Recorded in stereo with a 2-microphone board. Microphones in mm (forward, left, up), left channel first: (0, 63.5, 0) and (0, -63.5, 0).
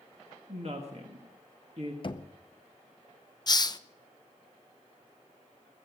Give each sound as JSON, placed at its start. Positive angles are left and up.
{"t": 0.5, "sound": "a woman speaking", "side_deg": -55, "distance_m": 1.7}
{"t": 2.0, "sound": "knocking", "side_deg": 40, "distance_m": 0.7}
{"t": 3.5, "sound": "a hiss", "side_deg": 30, "distance_m": 0.5}